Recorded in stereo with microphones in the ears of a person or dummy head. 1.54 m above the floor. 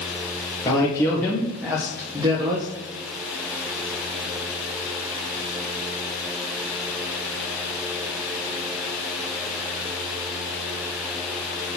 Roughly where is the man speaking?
Centre.